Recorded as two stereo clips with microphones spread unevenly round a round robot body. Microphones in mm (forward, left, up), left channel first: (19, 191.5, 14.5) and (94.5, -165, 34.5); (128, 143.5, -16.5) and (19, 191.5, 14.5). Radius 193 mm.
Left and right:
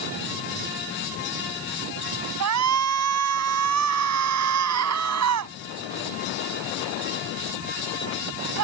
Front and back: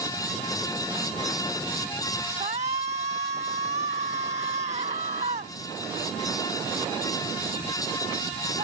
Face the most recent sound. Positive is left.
turn(degrees=-130)